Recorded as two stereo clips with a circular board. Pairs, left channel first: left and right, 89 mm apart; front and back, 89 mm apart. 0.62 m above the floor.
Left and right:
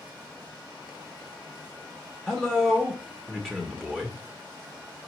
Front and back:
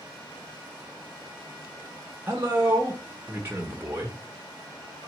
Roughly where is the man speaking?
Behind.